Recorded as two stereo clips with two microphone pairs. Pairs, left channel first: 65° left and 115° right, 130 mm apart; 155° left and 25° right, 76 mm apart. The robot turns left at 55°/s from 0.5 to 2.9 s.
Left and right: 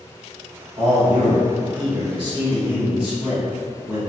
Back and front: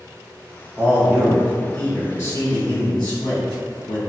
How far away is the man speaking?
About 1.7 m.